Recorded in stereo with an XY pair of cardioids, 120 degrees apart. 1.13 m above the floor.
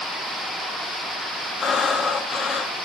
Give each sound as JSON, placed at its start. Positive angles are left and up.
{"t": 1.6, "sound": "breathing", "azimuth_deg": 45, "distance_m": 0.6}